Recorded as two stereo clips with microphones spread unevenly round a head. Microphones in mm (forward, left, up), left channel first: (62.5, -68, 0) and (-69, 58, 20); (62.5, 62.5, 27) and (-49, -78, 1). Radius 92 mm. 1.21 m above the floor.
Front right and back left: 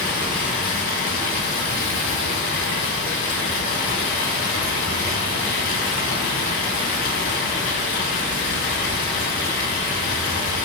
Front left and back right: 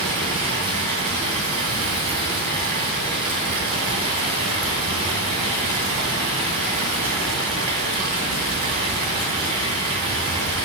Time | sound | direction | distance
0.0 | running water | 65° right | 2.5 m